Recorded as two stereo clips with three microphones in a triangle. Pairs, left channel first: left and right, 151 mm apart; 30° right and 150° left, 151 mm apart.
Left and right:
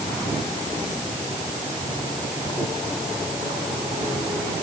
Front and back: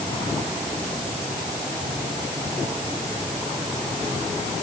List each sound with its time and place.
Only background noise.